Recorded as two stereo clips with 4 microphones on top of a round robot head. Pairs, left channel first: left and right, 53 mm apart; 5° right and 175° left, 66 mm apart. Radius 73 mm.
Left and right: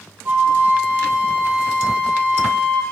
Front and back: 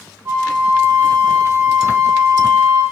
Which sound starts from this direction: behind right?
A flute, at 0.2 s.